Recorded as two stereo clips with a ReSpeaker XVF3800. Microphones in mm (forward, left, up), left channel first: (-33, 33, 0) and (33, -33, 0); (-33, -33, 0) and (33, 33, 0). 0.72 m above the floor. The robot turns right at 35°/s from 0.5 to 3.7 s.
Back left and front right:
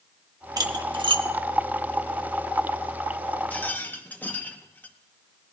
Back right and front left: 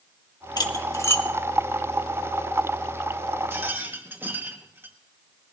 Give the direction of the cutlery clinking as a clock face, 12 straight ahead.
3 o'clock.